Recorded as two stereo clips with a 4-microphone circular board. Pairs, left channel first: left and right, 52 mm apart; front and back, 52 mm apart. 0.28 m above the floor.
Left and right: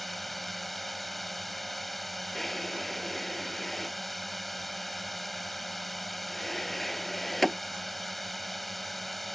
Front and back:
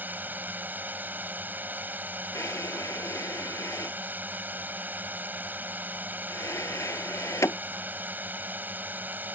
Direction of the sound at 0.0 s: Straight behind.